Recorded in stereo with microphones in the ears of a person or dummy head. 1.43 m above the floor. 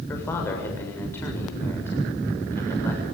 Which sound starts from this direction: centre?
A man speaking, at 0.1 s.